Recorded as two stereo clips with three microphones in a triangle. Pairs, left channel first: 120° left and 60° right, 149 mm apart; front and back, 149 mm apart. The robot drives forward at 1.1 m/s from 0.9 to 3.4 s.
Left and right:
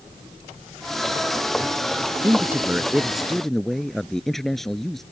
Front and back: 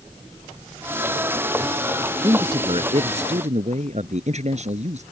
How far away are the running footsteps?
No running footsteps in this recording.